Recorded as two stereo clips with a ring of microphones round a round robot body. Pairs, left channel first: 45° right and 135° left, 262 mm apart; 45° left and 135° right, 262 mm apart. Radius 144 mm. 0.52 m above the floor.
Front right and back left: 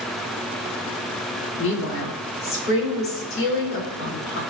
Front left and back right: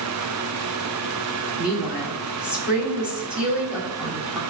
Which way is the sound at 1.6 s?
50° right.